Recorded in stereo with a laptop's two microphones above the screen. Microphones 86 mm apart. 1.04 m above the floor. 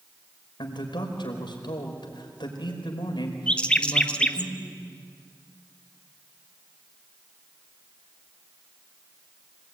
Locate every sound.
0.6 s a man speaking: 75° left (ahead or behind), 5 m
3.5 s a bird: 15° left (ahead or behind), 0.8 m